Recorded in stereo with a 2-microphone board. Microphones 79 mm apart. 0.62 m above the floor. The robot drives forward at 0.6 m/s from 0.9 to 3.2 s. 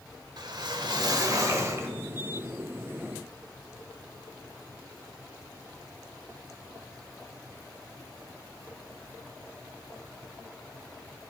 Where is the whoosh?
60° right (ahead or behind), 0.7 m; by 1.9 s 35° right (ahead or behind), 1.2 m.